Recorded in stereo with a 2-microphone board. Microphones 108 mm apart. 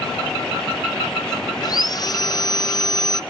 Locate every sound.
1.6 s sawing: 40° left (ahead or behind), 0.6 m